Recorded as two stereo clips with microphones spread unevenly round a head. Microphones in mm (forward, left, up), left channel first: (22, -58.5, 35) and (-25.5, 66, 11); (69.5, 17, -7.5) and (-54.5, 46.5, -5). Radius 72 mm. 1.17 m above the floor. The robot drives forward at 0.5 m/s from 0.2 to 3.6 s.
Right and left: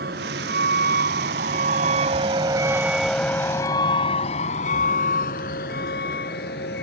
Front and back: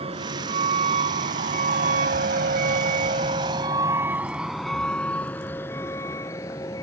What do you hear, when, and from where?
0.0 s a vehicle: 125° left; by 6.8 s 80° right